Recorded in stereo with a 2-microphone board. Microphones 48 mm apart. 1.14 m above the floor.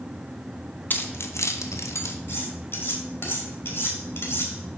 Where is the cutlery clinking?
50° left (ahead or behind), 2 m.